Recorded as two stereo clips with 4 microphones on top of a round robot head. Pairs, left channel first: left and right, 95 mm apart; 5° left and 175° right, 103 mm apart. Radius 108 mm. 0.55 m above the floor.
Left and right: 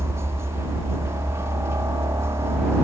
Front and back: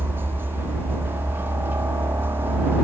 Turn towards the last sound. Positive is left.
turn(degrees=-125)